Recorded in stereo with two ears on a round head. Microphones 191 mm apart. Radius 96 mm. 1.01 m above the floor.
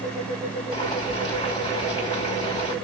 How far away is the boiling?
About 2.5 m.